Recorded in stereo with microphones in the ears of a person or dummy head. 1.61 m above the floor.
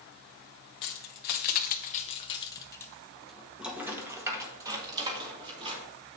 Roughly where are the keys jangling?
Left.